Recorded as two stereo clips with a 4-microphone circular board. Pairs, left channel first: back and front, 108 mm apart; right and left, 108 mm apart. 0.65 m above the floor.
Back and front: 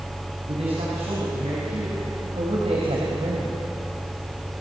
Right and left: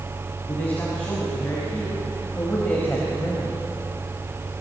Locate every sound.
0.5 s a man speaking: 15° right, 6 m; by 3.5 s 20° right, 4 m